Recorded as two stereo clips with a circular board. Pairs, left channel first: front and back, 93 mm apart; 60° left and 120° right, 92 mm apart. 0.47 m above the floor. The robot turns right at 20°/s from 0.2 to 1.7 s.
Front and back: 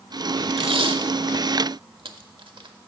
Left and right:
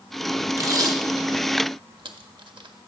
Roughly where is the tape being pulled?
Behind.